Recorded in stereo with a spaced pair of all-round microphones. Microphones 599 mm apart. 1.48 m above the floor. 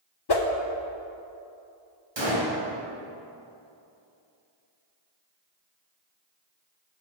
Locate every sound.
0.3 s a whoosh: 45° left (ahead or behind), 0.6 m
2.2 s a gunshot: 45° right (ahead or behind), 2.0 m